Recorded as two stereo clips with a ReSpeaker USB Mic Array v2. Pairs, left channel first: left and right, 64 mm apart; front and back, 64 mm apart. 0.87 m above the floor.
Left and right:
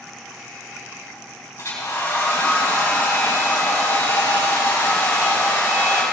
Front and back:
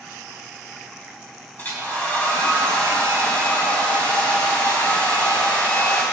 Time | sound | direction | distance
1.6 | a hair dryer | 65° left | 4 m